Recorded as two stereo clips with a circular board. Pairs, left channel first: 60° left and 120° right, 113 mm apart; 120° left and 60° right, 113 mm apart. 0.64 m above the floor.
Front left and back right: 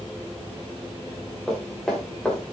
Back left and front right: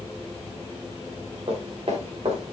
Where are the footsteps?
30° right, 4 m; by 2.5 s 20° right, 3.5 m.